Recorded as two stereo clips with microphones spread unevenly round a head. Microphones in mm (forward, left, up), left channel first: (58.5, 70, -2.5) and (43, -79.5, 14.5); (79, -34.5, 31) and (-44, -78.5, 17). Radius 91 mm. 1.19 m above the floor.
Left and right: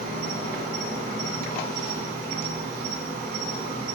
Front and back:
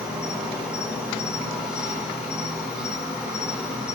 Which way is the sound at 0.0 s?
80° right.